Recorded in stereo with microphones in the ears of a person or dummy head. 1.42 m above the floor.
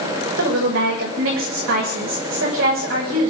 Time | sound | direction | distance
0.4 | a woman speaking | 90° right | 7.5 m